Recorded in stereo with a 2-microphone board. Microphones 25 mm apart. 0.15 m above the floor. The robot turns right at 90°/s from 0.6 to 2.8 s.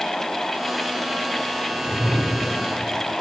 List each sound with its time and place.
1.7 s a whoosh: 150° left, 10 m; by 2.6 s 125° right, 10 m